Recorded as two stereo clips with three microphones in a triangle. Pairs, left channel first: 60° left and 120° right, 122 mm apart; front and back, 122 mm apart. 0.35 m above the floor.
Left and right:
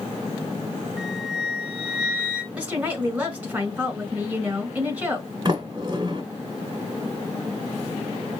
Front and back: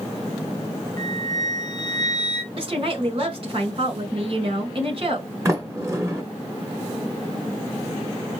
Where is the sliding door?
130° right, 1.4 m.